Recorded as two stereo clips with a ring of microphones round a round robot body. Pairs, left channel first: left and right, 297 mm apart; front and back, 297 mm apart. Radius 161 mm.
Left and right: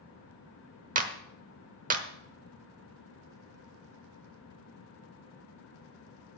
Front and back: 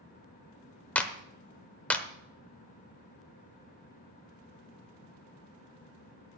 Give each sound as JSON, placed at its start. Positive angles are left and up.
{"t": 0.9, "sound": "a clap", "azimuth_deg": -80, "distance_m": 1.1}